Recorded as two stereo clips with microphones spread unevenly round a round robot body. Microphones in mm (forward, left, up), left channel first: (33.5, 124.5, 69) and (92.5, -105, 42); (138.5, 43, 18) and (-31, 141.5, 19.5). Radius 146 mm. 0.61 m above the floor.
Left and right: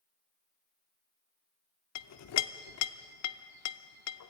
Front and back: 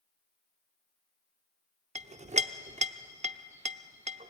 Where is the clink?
95° left, 0.8 m.